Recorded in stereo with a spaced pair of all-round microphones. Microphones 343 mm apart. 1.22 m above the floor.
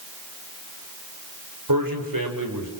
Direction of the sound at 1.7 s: 75° right (ahead or behind).